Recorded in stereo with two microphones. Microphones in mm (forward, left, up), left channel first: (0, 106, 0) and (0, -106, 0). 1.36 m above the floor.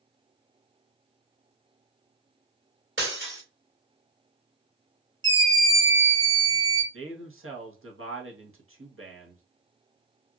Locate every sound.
3.0 s breaking glass: 65° right (ahead or behind), 2.5 m
5.2 s a scream: 75° right (ahead or behind), 1.5 m
6.9 s a man speaking: 75° right (ahead or behind), 1.1 m